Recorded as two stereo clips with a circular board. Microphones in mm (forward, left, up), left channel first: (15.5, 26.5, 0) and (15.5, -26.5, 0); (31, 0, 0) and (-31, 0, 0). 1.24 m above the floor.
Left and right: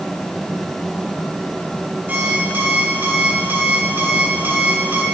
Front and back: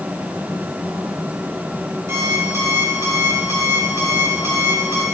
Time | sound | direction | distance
2.1 | an alarm clock | 140° right | 1.9 m